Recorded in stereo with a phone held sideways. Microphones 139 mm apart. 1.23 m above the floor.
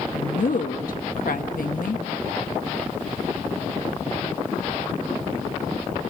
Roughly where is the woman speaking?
Left.